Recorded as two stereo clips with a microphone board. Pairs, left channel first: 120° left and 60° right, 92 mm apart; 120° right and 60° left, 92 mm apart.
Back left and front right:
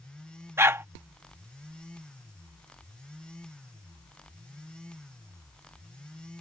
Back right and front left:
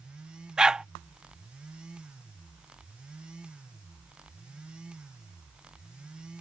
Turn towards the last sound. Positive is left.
turn(degrees=-15)